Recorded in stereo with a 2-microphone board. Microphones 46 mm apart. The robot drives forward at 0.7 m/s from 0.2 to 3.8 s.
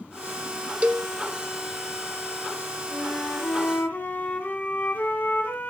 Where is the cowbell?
30° right (ahead or behind), 0.7 m; by 1.1 s 20° right (ahead or behind), 0.9 m.